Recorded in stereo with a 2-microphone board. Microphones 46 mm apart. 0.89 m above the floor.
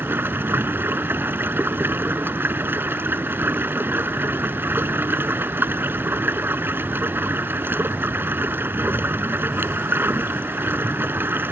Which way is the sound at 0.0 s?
45° right (ahead or behind).